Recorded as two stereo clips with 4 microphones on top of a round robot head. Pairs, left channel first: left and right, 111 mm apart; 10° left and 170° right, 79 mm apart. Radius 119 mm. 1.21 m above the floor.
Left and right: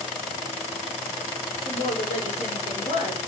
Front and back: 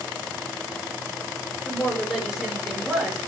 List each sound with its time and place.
1.6 s a woman speaking: 100° left, 4 m